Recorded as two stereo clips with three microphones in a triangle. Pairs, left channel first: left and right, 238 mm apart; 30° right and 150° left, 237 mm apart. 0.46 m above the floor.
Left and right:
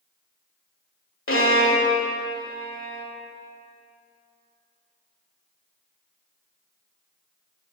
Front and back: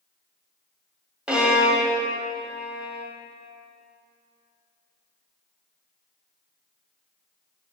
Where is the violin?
65° left, 1.3 m.